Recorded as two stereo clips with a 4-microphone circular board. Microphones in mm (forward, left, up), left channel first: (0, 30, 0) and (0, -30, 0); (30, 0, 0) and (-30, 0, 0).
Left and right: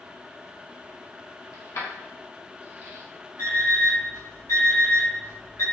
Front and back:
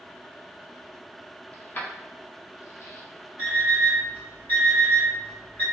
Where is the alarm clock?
60° left, 1.9 m.